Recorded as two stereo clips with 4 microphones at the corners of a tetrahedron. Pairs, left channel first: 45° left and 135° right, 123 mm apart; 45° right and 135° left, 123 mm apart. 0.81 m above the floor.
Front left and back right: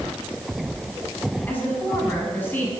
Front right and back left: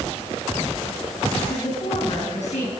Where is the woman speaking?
30° right, 7.5 m.